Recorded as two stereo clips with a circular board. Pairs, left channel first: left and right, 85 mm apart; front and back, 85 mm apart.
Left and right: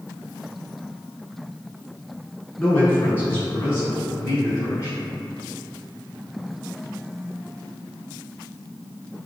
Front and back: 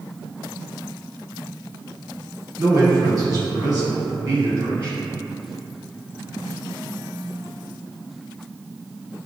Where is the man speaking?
150° left, 1.7 m; by 5.0 s 140° left, 3 m.